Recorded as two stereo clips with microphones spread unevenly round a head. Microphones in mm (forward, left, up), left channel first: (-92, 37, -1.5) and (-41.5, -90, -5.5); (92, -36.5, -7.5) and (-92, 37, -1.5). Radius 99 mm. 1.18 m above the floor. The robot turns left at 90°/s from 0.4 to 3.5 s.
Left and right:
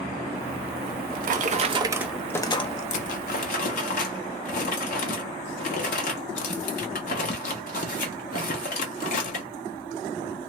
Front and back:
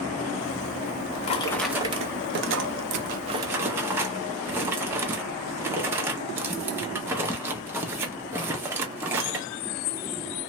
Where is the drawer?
40° right, 0.6 m; by 9.5 s 80° left, 0.6 m.